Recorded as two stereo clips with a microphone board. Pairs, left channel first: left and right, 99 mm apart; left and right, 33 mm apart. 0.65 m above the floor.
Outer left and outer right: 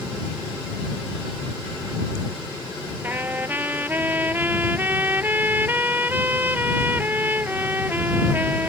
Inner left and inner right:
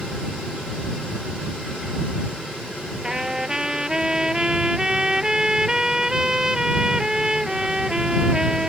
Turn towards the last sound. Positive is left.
turn(degrees=-20)  # may be behind; listen again after turning